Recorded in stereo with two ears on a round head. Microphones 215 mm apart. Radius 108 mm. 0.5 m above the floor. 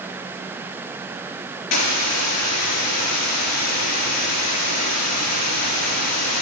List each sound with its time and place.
1.7 s a hiss: 80° left, 3 m